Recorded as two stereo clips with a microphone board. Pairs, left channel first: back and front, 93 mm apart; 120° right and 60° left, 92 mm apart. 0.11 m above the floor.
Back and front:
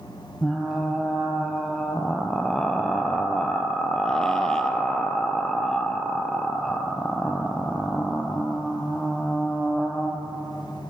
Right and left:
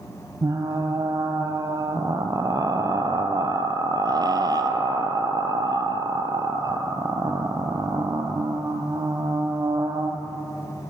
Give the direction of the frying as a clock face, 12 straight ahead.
9 o'clock.